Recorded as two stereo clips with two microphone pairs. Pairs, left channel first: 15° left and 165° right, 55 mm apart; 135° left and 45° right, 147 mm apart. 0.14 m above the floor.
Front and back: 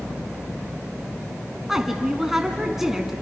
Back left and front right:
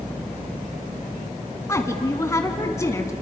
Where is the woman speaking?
125° left, 1.1 m.